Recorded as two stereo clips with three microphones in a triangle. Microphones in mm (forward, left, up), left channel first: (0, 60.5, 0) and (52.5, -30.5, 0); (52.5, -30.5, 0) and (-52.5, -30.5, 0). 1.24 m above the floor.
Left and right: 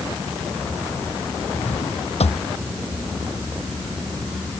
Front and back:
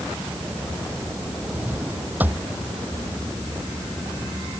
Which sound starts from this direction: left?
A drawer, at 1.5 s.